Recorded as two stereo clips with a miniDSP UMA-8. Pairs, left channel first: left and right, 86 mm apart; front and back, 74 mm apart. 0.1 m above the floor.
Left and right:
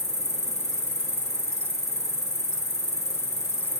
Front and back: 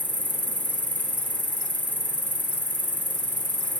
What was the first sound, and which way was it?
An insect, 55° left.